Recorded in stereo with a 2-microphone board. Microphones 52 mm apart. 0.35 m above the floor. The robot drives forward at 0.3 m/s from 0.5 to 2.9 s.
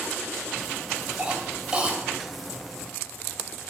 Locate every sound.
1.2 s a cough: 20° right (ahead or behind), 1.9 m